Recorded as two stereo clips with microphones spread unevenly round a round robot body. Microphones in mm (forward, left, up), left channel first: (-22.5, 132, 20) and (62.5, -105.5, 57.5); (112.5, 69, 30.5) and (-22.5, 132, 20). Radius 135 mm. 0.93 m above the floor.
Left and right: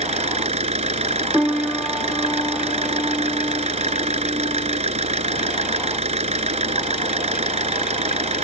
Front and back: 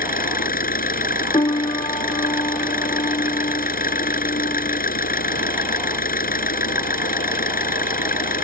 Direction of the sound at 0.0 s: 5° right.